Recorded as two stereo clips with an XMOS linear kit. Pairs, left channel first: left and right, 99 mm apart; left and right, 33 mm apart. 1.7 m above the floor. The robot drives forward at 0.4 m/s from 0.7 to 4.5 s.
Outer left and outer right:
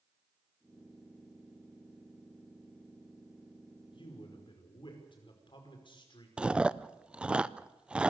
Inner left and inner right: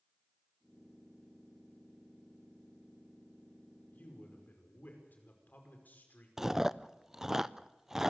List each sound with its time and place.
3.9 s a man speaking: 55° left (ahead or behind), 5 m
6.4 s chewing: 10° right (ahead or behind), 0.5 m